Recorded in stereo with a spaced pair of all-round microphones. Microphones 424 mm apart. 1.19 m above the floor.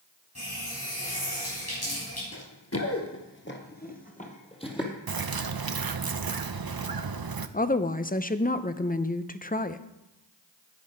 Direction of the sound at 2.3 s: 40° left (ahead or behind).